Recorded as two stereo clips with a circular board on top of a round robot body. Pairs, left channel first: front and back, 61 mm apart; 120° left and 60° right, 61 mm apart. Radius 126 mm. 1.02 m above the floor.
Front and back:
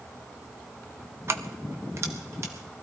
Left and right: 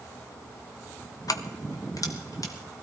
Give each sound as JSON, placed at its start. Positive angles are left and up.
{"t": 1.3, "sound": "keys jangling", "azimuth_deg": 135, "distance_m": 0.8}